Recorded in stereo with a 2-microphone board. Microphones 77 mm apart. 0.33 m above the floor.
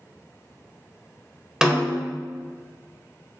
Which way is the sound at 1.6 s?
10° right (ahead or behind).